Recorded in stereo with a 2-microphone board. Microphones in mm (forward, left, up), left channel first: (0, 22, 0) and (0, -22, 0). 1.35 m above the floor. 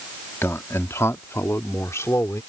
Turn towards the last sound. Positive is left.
turn(degrees=85)